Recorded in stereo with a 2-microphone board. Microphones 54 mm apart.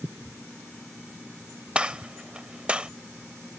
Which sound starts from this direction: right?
A gunshot, at 1.8 s.